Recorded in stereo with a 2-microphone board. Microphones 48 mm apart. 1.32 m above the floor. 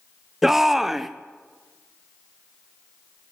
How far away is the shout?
About 0.6 m.